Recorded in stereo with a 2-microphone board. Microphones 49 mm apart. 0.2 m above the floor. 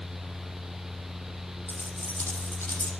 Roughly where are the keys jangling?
Left.